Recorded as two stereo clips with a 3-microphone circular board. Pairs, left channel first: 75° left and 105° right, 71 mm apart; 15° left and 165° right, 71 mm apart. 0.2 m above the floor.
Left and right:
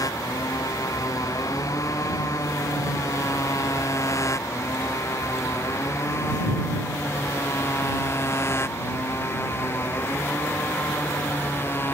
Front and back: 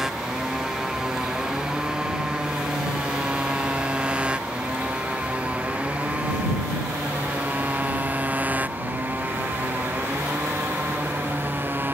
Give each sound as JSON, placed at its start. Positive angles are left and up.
{"t": 0.0, "sound": "a motorcycle", "azimuth_deg": 115}